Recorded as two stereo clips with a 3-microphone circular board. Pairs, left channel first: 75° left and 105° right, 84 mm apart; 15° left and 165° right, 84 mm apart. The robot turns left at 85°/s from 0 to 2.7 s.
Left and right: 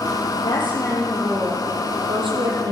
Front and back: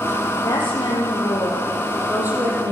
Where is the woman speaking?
70° left, 8.5 m; by 2.7 s 130° right, 8.5 m.